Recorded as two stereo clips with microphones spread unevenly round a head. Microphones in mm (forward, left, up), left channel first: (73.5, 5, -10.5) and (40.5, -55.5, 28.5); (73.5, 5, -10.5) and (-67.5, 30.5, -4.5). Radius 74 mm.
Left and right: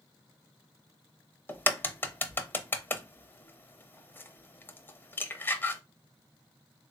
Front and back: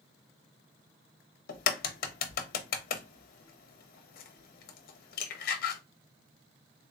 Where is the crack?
20° right, 0.6 m.